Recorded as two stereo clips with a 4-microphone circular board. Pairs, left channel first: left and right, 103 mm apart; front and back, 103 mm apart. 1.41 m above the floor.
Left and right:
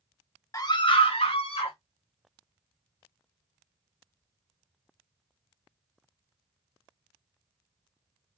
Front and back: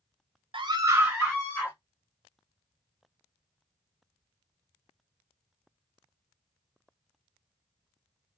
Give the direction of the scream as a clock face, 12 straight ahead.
7 o'clock.